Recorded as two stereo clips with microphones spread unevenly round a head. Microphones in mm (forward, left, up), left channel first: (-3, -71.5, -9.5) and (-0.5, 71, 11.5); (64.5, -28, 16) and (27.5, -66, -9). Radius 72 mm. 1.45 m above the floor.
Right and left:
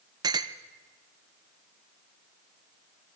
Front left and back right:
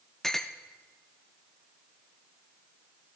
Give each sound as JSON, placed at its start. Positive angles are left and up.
{"t": 0.2, "sound": "a clink", "azimuth_deg": 75, "distance_m": 0.5}